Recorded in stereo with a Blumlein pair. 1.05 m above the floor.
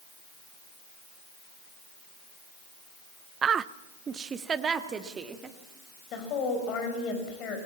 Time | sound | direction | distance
3.4 | a woman speaking | 25° right | 0.5 m
6.1 | a woman speaking | 35° left | 5 m